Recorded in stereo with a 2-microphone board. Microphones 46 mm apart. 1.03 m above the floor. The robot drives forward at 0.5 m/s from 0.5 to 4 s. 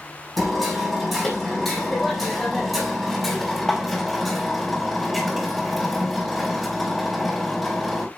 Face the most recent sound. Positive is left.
turn(degrees=0)  # may be behind; listen again after turning